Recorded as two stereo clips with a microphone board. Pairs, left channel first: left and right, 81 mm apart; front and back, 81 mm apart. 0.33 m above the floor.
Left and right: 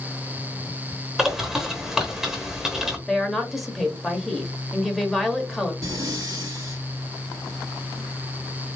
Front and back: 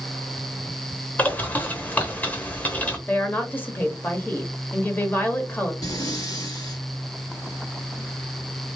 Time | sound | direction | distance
1.2 | a bird | 15° right | 1.0 m
3.1 | a woman speaking | straight ahead | 0.9 m
5.8 | breathing | 45° right | 1.8 m